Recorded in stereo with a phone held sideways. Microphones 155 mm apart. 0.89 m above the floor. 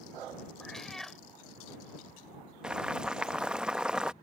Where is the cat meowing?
Centre (ahead or behind).